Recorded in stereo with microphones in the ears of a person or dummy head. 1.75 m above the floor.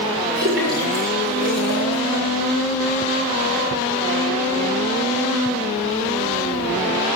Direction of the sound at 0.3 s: 60° right (ahead or behind).